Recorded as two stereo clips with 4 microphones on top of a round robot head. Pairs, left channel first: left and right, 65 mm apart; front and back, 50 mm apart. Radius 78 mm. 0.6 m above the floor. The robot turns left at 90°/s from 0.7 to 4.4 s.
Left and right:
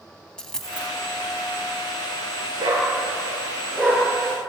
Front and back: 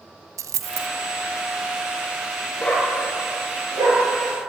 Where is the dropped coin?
170° left, 1.2 m; by 0.9 s 155° left, 1.2 m.